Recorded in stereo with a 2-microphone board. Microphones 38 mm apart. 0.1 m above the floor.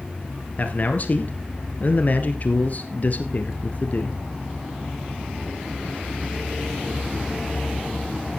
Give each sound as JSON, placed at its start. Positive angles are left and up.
{"t": 0.6, "sound": "a man speaking", "side_deg": 45, "distance_m": 1.5}